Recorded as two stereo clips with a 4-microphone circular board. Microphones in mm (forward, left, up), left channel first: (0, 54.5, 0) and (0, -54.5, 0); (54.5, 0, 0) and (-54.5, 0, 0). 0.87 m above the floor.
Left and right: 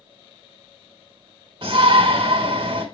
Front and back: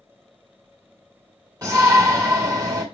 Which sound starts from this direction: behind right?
A shout, at 1.6 s.